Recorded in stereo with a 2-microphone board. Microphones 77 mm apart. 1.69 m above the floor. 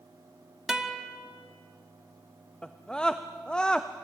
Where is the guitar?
10° right (ahead or behind), 1.4 m.